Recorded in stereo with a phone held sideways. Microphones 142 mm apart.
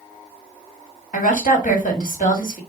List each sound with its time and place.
1.1 s a woman speaking: 65° left (ahead or behind), 1.8 m